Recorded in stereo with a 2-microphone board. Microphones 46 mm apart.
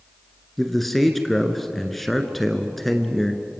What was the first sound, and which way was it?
A man speaking, 5° left (ahead or behind).